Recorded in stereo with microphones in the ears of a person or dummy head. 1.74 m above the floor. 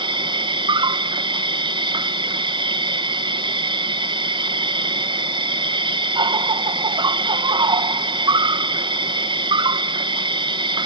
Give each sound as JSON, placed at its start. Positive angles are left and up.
{"t": 0.0, "sound": "an insect", "side_deg": -25}